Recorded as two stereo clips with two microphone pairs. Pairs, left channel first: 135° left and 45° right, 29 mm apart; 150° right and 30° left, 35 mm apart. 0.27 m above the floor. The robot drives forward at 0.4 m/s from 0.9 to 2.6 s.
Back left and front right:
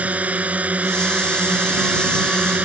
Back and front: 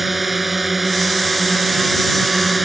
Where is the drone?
55° right.